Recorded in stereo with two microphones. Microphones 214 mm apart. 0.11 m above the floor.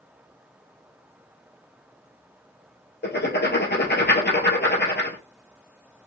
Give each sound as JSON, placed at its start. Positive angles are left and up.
{"t": 3.0, "sound": "writing", "side_deg": 55, "distance_m": 1.3}